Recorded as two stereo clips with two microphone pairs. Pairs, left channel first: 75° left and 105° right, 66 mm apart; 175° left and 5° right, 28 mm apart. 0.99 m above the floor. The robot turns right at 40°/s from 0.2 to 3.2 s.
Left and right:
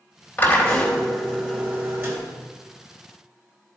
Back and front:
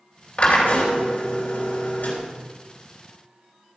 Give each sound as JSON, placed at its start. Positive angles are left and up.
{"t": 0.4, "sound": "a drill", "azimuth_deg": 135, "distance_m": 3.0}